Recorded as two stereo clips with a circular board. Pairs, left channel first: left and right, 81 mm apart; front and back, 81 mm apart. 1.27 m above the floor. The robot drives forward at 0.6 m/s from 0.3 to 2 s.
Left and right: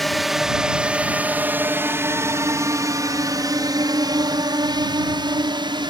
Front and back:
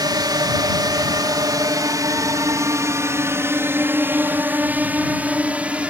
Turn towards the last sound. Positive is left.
turn(degrees=-105)